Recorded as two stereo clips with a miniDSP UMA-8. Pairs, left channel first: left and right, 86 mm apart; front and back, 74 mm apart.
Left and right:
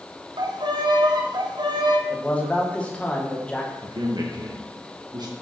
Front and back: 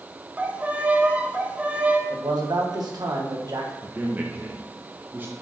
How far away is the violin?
About 0.9 m.